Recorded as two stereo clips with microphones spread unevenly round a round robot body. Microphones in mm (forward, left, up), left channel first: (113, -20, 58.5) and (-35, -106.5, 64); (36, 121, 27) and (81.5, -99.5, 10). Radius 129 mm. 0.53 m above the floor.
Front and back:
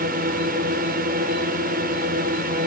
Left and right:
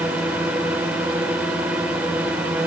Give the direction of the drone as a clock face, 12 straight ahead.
5 o'clock.